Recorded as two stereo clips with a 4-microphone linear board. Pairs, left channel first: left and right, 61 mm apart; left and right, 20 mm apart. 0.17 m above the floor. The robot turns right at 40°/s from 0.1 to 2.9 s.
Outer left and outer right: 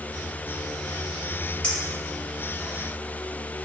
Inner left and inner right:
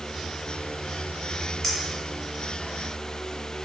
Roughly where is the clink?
Centre.